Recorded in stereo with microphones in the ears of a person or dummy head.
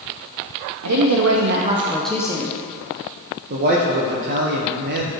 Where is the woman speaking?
85° right, 1.0 m; by 2.6 s 25° left (ahead or behind), 1.0 m.